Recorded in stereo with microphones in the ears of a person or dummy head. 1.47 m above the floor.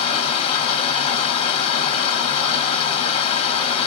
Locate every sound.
0.0 s running water: 30° left (ahead or behind), 1.3 m